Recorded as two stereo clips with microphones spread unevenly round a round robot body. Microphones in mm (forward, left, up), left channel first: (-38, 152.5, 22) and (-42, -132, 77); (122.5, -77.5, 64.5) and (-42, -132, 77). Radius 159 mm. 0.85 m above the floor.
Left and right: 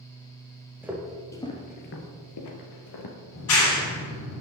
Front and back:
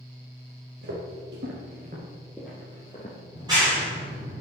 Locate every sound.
0.8 s footsteps: 170° right, 1.7 m; by 3.1 s 85° left, 1.8 m
3.3 s a clap: 125° left, 3.5 m